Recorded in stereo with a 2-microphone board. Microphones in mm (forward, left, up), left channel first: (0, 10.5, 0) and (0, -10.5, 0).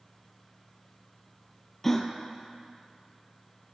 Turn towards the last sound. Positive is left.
turn(degrees=10)  # may be behind; listen again after turning